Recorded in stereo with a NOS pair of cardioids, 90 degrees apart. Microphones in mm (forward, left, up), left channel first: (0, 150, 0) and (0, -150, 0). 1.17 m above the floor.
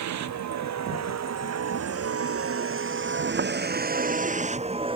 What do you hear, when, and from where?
0.0 s a vehicle: 70° right; by 5.0 s 15° right